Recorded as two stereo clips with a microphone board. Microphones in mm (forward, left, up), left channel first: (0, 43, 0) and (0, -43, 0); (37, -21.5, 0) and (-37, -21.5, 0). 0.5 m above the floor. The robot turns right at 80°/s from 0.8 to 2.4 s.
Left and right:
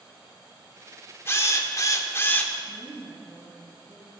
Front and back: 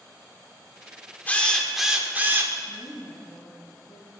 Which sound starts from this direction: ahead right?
A woman speaking, at 2.6 s.